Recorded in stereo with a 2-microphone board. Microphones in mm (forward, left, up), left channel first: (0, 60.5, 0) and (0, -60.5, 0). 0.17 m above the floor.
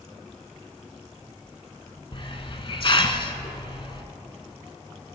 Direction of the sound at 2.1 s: 45° left (ahead or behind).